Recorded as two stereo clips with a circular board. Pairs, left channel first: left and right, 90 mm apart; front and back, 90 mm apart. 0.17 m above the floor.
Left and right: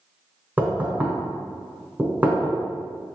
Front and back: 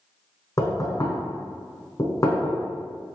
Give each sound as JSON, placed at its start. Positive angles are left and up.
{"t": 0.6, "sound": "knocking", "azimuth_deg": -30, "distance_m": 1.0}